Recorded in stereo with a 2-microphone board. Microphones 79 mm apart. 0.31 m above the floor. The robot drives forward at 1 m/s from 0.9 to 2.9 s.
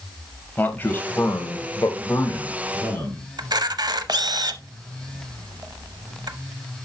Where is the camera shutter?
60° right (ahead or behind), 0.6 m.